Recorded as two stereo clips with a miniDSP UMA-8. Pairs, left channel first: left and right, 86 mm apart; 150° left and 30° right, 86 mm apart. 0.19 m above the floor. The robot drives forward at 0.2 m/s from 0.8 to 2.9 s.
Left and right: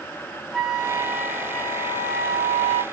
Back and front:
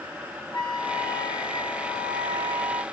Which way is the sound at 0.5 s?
Straight behind.